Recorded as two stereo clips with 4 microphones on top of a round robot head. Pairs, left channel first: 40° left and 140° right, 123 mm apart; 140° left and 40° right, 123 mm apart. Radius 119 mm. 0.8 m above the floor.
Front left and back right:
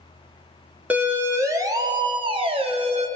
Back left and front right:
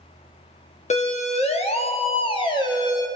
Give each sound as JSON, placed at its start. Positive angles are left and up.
{"t": 0.9, "sound": "a siren", "azimuth_deg": 145, "distance_m": 3.0}